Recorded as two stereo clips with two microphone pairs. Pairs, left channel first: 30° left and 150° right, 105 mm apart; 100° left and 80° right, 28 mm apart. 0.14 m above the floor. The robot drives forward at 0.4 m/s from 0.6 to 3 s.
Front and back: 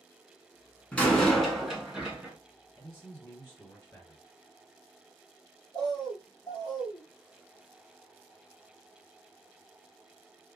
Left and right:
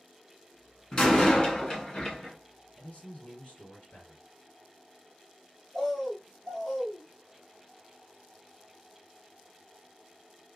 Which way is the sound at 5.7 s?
175° left.